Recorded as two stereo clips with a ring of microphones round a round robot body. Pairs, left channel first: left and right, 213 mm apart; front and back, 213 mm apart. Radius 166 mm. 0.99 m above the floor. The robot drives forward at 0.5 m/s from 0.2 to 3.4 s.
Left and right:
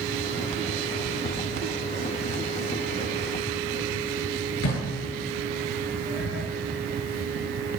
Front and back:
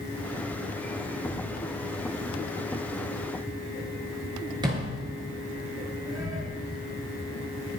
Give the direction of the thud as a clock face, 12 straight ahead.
9 o'clock.